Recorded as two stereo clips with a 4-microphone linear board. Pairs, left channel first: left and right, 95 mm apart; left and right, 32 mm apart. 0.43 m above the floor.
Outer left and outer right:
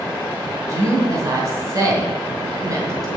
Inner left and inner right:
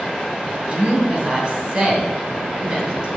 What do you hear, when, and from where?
0.7 s a woman speaking: 35° right (ahead or behind), 2.5 m